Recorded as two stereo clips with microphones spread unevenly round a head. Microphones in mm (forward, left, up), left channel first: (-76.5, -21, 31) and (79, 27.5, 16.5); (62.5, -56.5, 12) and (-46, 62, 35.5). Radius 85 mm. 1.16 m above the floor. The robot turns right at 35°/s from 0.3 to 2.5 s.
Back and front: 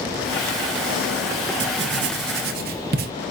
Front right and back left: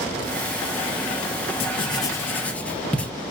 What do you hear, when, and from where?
1.6 s writing: 10° left, 0.5 m; by 3.1 s 40° left, 0.5 m